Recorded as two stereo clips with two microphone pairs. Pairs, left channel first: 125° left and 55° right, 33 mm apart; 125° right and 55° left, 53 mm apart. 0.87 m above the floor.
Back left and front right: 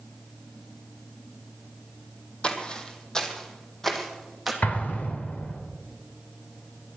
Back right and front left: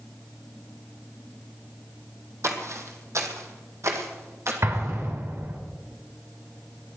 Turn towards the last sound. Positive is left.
turn(degrees=85)